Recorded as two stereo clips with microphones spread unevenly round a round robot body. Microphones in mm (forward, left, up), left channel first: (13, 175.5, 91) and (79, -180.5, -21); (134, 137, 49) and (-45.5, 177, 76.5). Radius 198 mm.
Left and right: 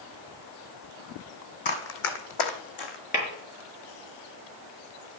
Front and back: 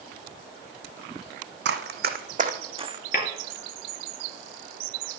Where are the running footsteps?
160° left, 1.4 m; by 3.0 s 105° left, 1.9 m.